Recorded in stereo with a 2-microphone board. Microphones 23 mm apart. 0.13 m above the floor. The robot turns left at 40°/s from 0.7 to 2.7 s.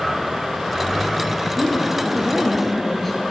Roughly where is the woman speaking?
Behind right.